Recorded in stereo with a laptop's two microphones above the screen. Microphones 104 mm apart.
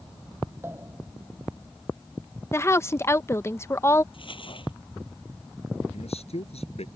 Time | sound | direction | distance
0.6 | a pop | 25° right (ahead or behind) | ?
2.5 | a woman speaking | 25° left (ahead or behind) | ?
4.1 | crumpling | 55° left (ahead or behind) | ?
5.9 | a man speaking | 80° left | ?